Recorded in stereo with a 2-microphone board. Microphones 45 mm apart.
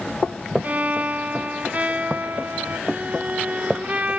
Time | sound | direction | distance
0.6 | a violin | 35° right (ahead or behind) | 1.0 m